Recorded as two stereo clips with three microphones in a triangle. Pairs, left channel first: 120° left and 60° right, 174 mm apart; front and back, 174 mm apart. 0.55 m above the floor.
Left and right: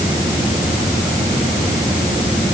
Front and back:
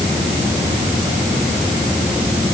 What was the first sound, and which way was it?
Only background noise.